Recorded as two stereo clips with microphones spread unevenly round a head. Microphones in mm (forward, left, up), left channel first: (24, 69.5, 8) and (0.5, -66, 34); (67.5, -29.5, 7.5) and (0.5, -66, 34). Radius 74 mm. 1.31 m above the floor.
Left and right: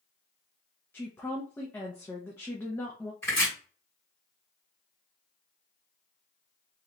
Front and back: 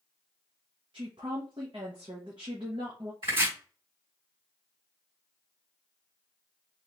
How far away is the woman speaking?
About 0.8 m.